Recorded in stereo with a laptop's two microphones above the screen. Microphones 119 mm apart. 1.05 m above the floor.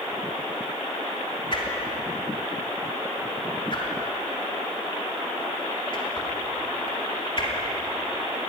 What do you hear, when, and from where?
1.5 s a whoosh: 45° left (ahead or behind), 3 m